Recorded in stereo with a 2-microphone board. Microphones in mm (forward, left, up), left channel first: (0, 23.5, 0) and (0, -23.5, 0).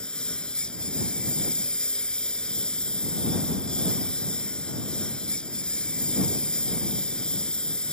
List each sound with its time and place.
0.0 s a lawn mower: 20° left (ahead or behind)